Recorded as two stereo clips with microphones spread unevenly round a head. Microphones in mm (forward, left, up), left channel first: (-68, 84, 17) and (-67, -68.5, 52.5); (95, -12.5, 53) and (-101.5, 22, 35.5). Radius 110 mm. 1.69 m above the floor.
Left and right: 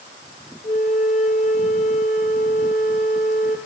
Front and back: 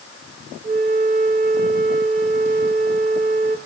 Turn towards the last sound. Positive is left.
turn(degrees=125)